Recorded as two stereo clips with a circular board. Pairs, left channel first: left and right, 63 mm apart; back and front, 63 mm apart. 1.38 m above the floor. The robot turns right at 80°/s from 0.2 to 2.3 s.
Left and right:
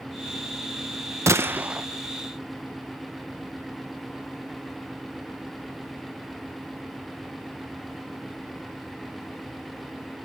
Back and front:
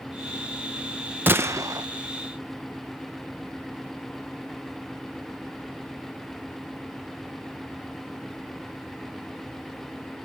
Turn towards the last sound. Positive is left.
turn(degrees=30)